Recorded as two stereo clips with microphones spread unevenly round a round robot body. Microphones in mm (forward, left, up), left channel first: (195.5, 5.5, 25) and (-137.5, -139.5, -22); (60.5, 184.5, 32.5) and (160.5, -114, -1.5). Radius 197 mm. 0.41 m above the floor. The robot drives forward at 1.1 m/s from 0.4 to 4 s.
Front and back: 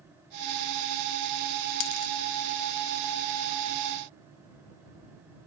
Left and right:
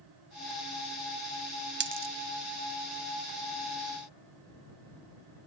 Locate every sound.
1.8 s a dropped coin: 15° right; by 2.1 s 25° right